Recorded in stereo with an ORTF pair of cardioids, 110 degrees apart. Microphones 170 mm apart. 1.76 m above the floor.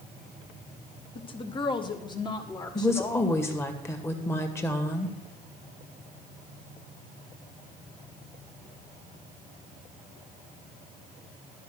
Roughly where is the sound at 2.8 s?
Ahead.